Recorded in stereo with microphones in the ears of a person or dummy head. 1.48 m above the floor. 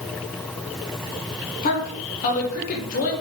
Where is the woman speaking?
45° left (ahead or behind), 1.7 m.